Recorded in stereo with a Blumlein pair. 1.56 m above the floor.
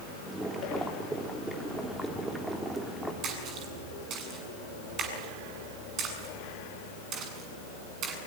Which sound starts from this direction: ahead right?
A splash, at 3.2 s.